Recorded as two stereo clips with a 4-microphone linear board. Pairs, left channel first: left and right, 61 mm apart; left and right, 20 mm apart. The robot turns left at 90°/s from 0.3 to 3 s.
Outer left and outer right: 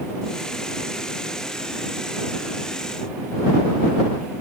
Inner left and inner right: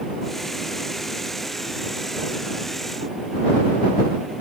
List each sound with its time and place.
Only background noise.